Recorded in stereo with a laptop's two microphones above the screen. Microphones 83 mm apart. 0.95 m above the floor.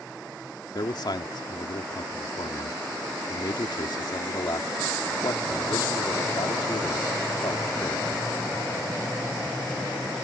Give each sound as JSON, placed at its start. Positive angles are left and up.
{"t": 0.8, "sound": "a man speaking", "side_deg": 60}